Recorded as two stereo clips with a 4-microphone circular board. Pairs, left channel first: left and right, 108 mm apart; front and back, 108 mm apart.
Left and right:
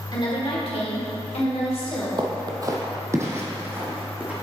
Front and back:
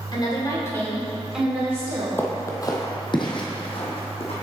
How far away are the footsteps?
About 1.0 m.